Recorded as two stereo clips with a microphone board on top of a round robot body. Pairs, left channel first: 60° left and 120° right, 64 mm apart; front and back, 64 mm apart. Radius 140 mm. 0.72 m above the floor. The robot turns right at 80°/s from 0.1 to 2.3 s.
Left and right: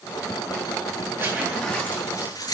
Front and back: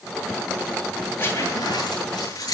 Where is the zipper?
65° right, 8.5 m; by 2.5 s 25° left, 8.5 m.